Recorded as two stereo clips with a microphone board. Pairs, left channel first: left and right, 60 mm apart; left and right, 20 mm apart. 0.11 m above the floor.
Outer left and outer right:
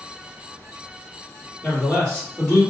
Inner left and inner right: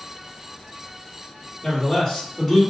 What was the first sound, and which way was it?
A man speaking, 10° left (ahead or behind).